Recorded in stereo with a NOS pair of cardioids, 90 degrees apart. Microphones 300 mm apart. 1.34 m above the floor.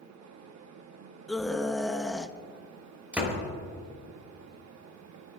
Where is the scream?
Straight ahead, 1.2 m.